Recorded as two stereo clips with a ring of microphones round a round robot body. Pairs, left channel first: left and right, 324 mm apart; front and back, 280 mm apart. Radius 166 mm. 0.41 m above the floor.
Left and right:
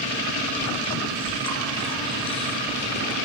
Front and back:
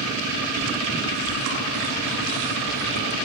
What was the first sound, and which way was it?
Chewing, 165° left.